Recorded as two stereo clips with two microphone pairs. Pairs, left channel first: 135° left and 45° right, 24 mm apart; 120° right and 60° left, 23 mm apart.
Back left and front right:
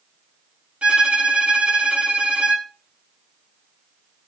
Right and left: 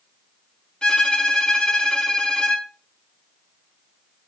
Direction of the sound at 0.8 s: 75° right.